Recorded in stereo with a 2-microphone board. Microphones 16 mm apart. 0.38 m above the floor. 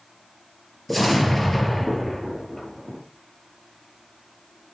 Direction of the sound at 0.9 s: 10° left (ahead or behind).